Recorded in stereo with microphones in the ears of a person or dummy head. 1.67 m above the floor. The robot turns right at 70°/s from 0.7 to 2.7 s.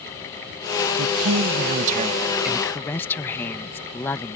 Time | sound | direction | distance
1.0 | a woman speaking | 110° right | ?